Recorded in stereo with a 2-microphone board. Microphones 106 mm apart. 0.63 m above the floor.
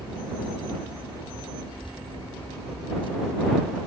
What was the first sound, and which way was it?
Keys jangling, 55° left (ahead or behind).